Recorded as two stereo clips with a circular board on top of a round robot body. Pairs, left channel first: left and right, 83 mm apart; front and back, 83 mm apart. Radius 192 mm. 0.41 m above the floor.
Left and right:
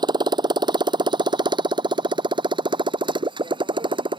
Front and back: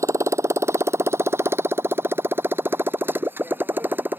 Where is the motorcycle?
125° right; by 4.2 s 110° right.